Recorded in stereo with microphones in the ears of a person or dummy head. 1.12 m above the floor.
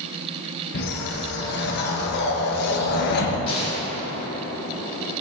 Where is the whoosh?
55° left (ahead or behind), 1.2 m.